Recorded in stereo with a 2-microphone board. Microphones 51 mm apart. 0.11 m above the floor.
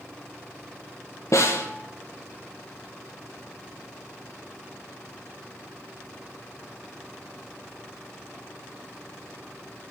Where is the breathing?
I don't hear breathing.